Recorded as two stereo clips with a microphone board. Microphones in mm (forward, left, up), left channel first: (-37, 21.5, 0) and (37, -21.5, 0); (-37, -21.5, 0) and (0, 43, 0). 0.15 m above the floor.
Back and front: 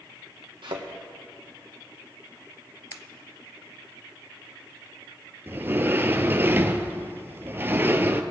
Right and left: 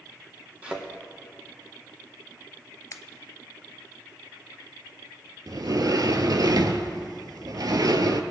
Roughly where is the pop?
Behind.